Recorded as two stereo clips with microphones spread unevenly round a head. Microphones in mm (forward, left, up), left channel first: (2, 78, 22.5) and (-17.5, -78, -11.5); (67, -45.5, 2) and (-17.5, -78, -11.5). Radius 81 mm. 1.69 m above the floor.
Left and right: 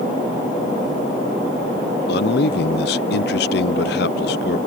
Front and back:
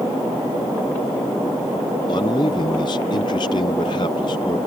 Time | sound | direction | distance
2.1 | a man speaking | 75° left | ?